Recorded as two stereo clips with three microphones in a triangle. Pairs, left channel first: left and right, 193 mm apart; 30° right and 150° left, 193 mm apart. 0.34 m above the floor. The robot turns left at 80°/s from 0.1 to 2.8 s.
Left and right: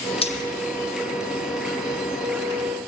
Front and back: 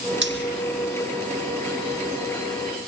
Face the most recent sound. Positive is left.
turn(degrees=-60)